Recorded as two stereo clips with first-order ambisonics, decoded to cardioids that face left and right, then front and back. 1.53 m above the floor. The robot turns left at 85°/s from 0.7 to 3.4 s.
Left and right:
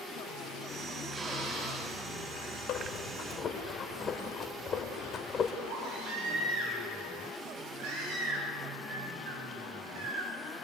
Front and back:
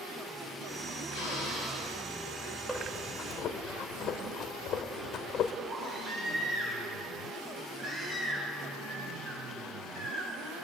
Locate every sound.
1.1 s a drill: 10° right, 9 m; by 1.9 s 80° right, 9 m
2.7 s breathing: 90° left, 1.7 m; by 5.5 s 30° left, 1.7 m
5.7 s a baby crying: 120° right, 9 m